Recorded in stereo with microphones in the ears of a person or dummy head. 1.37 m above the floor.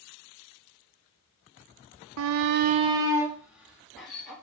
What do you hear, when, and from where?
2.2 s a shout: 65° right (ahead or behind), 0.5 m; by 4.3 s 5° right (ahead or behind), 2 m